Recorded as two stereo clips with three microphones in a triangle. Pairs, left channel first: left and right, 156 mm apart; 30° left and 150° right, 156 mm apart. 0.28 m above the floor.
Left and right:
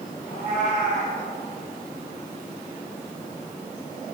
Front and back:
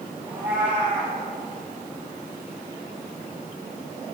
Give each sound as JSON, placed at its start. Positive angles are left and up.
{"t": 0.3, "sound": "a cat meowing", "azimuth_deg": 130, "distance_m": 3.5}